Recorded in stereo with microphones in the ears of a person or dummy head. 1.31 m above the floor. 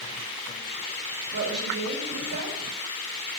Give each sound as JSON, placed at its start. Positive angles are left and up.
{"t": 1.3, "sound": "a woman speaking", "side_deg": -50, "distance_m": 2.0}